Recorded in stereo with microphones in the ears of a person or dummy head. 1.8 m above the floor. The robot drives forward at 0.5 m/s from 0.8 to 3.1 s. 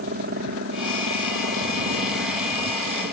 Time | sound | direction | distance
0.0 | a helicopter | 55° right (ahead or behind) | ?